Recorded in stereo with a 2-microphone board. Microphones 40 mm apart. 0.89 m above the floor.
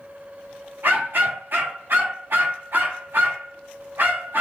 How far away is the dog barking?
About 0.8 m.